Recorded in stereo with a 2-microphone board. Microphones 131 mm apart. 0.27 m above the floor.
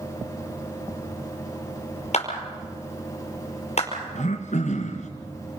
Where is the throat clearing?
70° left (ahead or behind), 2.5 m.